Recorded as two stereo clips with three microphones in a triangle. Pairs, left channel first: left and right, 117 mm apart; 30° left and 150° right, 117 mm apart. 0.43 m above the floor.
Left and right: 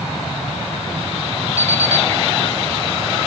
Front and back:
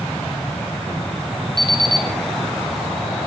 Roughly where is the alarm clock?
Behind left.